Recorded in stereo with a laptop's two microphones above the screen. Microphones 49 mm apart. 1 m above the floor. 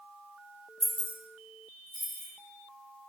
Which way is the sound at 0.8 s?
15° left (ahead or behind).